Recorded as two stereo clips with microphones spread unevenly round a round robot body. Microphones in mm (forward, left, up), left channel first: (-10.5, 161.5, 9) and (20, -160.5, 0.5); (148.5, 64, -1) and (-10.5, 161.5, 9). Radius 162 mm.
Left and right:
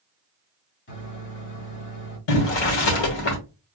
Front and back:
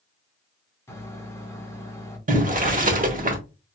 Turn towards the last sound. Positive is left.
turn(degrees=100)